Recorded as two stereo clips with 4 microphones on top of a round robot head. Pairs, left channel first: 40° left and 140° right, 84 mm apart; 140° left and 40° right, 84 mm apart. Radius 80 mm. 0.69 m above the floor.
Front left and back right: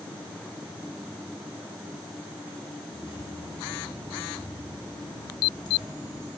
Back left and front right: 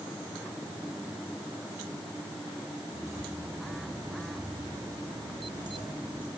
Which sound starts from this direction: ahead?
Keys jangling, at 2.9 s.